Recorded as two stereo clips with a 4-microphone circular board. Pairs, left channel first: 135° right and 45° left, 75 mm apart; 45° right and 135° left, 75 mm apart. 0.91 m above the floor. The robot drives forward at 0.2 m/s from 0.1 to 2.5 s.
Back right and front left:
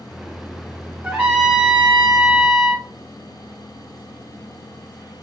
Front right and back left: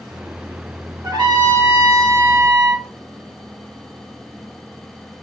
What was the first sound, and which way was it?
A trumpet, 115° left.